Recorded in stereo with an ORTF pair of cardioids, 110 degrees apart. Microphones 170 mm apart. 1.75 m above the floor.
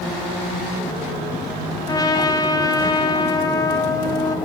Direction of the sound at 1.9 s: 20° left.